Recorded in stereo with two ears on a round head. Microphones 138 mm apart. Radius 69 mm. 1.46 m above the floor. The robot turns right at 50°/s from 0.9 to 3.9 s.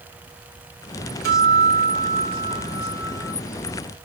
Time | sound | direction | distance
1.2 | a guitar | 85° right | 4 m